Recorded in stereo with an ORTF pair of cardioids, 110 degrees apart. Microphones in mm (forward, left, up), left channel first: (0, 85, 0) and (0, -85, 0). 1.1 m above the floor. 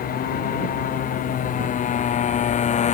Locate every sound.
0.0 s a motorcycle: 60° left; by 2.9 s 45° left